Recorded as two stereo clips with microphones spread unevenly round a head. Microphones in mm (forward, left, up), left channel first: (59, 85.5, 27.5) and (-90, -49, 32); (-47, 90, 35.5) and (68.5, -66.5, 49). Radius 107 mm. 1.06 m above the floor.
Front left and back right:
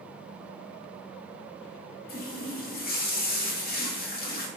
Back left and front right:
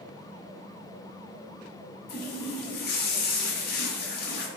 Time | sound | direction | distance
2.1 | a running tap | 85° left | 0.8 m